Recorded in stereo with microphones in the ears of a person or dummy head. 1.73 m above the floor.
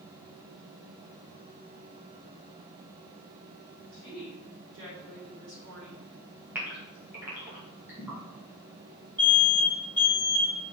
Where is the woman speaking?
65° right (ahead or behind), 3.5 m.